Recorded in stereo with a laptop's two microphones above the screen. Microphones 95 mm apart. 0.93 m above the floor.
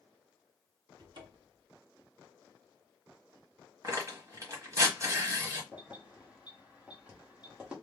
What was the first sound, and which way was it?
A cupboard door, 55° right (ahead or behind).